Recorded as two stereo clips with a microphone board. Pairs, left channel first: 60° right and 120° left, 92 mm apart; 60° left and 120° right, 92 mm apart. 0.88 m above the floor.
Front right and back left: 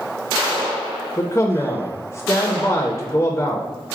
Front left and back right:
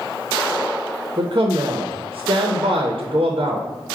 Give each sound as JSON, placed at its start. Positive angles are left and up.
{"t": 1.2, "sound": "a man speaking", "azimuth_deg": -110, "distance_m": 0.5}